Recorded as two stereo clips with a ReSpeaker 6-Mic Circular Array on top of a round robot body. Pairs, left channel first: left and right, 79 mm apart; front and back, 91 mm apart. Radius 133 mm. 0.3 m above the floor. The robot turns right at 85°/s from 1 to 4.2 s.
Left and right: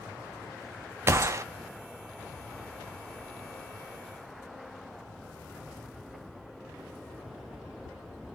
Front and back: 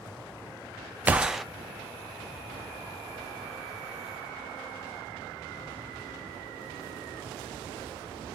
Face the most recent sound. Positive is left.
turn(degrees=145)